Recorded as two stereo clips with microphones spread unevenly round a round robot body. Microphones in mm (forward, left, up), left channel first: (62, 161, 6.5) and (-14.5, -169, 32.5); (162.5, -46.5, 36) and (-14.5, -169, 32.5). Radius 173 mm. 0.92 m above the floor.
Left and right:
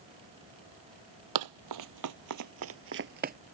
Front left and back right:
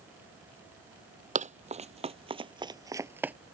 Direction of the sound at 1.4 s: 95° right.